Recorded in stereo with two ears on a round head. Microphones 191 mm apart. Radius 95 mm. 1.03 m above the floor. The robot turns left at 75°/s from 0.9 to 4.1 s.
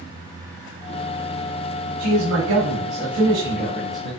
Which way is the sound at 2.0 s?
50° right.